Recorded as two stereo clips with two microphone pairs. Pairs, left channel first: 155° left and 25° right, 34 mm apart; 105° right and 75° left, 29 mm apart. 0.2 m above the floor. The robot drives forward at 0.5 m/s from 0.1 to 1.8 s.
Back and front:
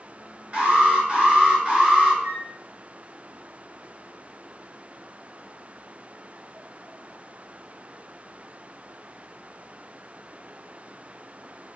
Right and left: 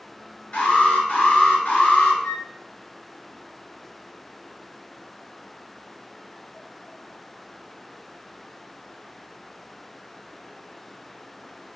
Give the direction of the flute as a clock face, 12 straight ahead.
1 o'clock.